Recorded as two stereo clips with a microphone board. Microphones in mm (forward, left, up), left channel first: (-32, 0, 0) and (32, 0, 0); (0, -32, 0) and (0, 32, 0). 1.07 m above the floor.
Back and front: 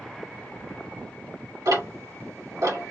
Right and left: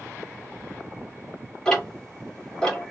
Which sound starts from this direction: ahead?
Ticking, at 1.6 s.